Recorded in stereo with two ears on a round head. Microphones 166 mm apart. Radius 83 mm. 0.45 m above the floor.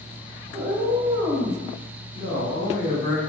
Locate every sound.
0.5 s a cat meowing: 25° right (ahead or behind), 1.0 m
2.1 s a man speaking: 15° left (ahead or behind), 1.3 m